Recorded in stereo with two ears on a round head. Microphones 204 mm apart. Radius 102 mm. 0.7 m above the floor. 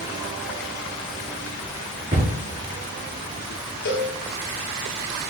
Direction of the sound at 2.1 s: 35° right (ahead or behind).